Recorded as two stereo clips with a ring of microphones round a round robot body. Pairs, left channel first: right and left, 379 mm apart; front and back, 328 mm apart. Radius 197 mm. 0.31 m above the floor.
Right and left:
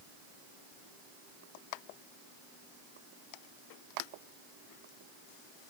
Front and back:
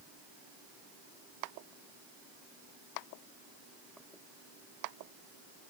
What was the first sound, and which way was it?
Only background noise.